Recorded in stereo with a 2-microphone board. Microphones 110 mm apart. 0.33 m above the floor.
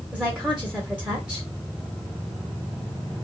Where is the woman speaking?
10° right (ahead or behind), 1.0 m.